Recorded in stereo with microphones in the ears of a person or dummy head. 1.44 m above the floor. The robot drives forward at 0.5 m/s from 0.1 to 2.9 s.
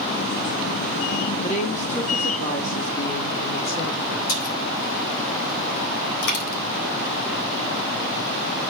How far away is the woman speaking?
About 2.5 m.